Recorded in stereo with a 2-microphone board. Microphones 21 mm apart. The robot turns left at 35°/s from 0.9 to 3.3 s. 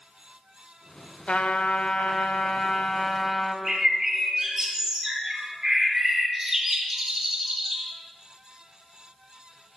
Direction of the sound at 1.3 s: 100° left.